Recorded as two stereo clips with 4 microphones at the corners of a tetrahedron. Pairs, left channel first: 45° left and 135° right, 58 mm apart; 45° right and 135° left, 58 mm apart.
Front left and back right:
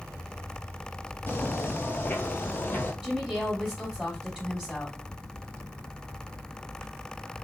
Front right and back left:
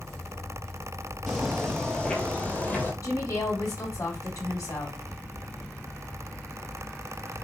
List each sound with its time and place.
1.3 s footsteps: 45° left, 1.7 m; by 2.9 s straight ahead, 2 m
3.0 s a woman speaking: 65° right, 3.5 m